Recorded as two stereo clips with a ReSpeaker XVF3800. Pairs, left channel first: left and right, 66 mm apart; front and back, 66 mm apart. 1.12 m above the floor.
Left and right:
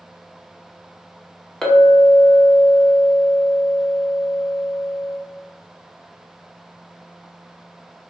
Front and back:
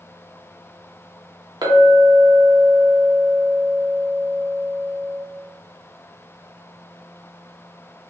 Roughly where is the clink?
Behind.